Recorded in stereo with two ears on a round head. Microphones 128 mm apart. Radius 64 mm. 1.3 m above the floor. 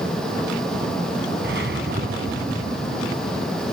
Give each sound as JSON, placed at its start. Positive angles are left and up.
{"t": 1.4, "sound": "a whoosh", "side_deg": -80}